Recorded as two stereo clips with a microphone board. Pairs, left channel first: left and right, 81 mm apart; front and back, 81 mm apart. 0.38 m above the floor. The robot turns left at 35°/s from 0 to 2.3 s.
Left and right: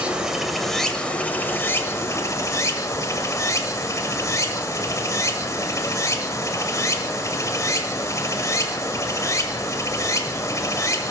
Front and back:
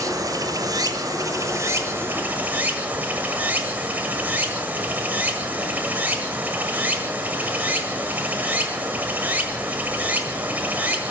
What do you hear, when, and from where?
0.0 s running water: 160° right, 1.4 m; by 11.1 s 120° left, 1.4 m